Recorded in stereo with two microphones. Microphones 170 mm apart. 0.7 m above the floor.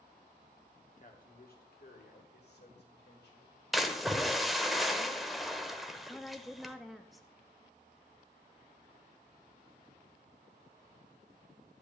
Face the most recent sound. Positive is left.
turn(degrees=0)  # may be behind; listen again after turning